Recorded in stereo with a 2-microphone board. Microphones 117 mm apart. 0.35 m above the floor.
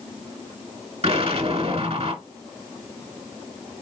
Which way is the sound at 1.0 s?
55° right (ahead or behind).